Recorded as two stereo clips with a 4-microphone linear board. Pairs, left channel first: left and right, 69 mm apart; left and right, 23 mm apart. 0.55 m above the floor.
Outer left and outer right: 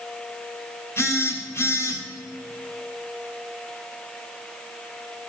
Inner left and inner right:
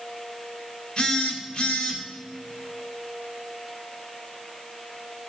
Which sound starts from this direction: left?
A phone buzzing, at 1.0 s.